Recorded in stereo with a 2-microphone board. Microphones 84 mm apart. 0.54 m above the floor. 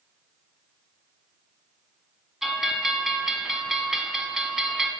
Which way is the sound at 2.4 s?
5° right (ahead or behind).